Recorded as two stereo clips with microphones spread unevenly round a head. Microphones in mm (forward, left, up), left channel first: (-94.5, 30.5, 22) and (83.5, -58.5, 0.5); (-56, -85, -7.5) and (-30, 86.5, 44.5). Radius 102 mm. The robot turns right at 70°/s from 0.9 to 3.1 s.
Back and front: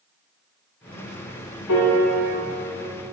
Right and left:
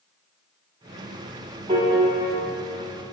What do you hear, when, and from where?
1.7 s a piano: 140° left, 1.5 m; by 2.4 s 175° right, 1.5 m